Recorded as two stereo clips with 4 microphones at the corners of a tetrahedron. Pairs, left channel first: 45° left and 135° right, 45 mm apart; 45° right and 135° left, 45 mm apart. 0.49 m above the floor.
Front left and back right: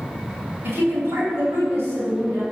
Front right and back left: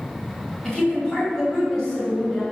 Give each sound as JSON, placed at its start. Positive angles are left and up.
{"t": 0.6, "sound": "a woman speaking", "azimuth_deg": -115, "distance_m": 3.0}